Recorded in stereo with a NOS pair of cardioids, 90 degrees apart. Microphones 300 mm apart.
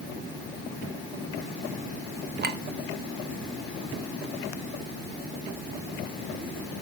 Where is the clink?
35° right, 1.3 m.